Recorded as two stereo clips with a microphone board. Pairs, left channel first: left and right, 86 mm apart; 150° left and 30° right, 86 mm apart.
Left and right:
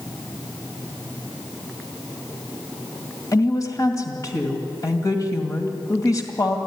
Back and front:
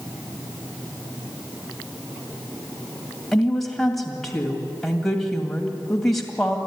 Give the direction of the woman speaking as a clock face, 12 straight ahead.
10 o'clock.